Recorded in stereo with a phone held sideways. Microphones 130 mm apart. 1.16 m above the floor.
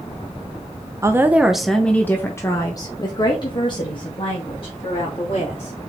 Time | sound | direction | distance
1.0 | a woman speaking | 25° right (ahead or behind) | 0.8 m